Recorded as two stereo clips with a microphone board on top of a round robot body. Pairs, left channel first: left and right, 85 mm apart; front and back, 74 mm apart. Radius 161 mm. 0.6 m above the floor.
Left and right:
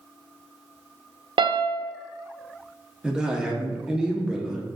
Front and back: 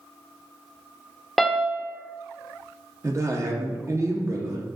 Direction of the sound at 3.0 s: 165° right.